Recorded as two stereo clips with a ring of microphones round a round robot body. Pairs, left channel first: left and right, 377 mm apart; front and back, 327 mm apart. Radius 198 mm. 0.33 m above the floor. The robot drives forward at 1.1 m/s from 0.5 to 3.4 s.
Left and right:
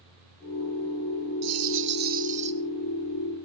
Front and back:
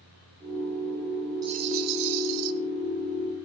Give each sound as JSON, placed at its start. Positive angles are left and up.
{"t": 1.4, "sound": "a rattle", "azimuth_deg": -105, "distance_m": 0.6}